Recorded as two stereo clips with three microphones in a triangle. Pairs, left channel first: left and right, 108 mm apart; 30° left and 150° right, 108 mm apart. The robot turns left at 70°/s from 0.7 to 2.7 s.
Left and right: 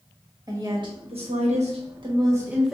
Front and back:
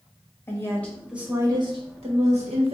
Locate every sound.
0.5 s a woman speaking: 35° right, 1.3 m; by 2.7 s 175° right, 1.3 m